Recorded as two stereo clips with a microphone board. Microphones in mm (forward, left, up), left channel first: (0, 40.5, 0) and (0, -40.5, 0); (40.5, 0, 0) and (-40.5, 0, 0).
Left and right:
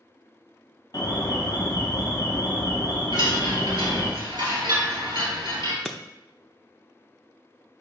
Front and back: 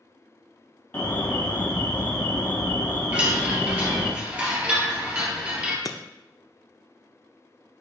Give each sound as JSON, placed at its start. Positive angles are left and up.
{"t": 0.9, "sound": "an alarm", "azimuth_deg": 55, "distance_m": 1.3}
{"t": 3.1, "sound": "a chime", "azimuth_deg": -110, "distance_m": 2.5}
{"t": 5.8, "sound": "breaking glass", "azimuth_deg": 5, "distance_m": 0.6}